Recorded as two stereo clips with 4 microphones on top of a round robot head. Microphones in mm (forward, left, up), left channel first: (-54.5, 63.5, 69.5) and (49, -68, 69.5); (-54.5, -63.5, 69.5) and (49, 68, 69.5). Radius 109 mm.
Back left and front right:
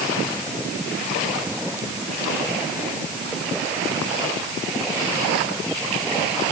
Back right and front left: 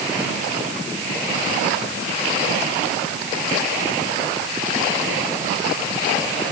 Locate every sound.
Only background noise.